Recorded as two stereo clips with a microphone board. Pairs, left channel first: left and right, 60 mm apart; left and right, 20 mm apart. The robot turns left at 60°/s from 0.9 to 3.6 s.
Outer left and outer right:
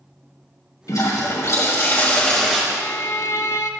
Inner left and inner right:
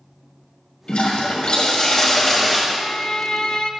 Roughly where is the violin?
Behind left.